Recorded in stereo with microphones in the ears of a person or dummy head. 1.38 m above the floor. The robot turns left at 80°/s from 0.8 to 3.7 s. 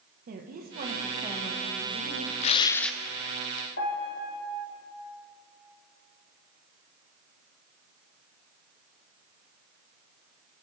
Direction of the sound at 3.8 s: 50° left (ahead or behind).